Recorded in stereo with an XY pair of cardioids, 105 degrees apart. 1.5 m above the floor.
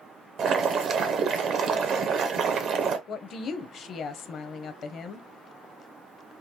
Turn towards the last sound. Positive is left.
turn(degrees=60)